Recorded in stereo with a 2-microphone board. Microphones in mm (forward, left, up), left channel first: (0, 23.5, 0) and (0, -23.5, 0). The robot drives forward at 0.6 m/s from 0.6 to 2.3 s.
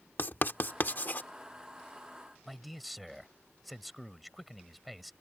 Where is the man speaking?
Centre (ahead or behind).